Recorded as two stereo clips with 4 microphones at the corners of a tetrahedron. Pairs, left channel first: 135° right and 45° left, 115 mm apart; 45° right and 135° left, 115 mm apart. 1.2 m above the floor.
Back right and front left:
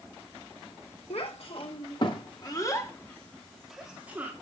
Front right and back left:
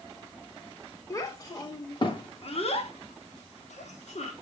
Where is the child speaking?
105° right, 2.5 m; by 4.3 s 30° right, 2 m.